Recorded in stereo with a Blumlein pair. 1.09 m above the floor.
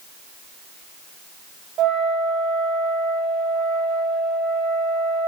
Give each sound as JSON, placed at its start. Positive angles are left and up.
{"t": 1.8, "sound": "a flute", "azimuth_deg": -30, "distance_m": 3.0}